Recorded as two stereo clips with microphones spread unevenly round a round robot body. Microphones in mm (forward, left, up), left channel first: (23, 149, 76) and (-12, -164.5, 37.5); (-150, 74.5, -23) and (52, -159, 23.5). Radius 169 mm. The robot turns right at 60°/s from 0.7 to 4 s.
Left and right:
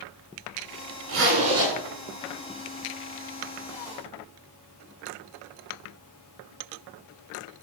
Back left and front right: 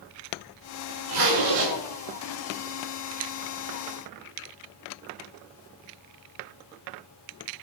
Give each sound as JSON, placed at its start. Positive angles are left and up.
{"t": 1.1, "sound": "a zipper", "azimuth_deg": -50, "distance_m": 7.5}